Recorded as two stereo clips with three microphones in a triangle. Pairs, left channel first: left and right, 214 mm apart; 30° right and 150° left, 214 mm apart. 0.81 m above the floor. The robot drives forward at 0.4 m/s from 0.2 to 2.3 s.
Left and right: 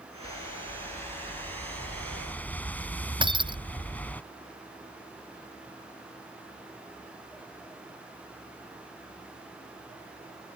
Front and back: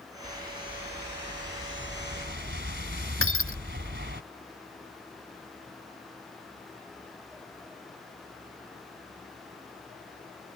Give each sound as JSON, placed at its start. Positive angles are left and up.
{"t": 0.2, "sound": "a whoosh", "azimuth_deg": 155}
{"t": 3.2, "sound": "breaking glass", "azimuth_deg": -20}